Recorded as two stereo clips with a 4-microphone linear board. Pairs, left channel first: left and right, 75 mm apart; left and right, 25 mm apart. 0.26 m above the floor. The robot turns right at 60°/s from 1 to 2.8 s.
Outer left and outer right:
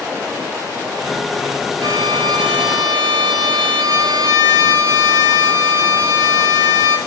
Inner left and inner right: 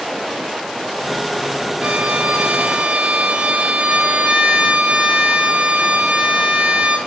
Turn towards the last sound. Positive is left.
turn(degrees=-65)